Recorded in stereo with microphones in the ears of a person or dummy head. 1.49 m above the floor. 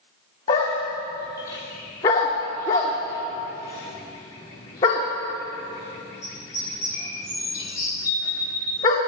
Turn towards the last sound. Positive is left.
turn(degrees=15)  # may be behind; listen again after turning